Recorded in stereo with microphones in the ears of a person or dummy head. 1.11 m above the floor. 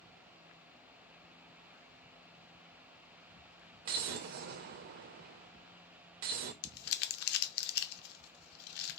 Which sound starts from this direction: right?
An explosion, at 3.9 s.